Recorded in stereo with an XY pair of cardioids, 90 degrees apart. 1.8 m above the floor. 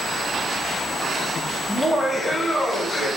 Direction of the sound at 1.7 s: Straight ahead.